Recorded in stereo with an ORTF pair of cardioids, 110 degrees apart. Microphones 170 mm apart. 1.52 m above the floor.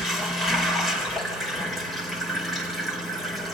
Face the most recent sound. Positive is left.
turn(degrees=0)